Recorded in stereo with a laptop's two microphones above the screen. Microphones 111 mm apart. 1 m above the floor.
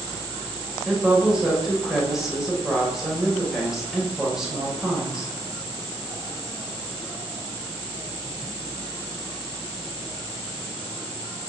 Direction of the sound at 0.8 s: 5° right (ahead or behind).